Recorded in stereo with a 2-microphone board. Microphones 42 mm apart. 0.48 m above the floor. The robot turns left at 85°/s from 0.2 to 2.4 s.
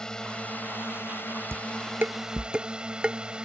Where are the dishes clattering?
80° right; by 3.2 s 25° right (ahead or behind).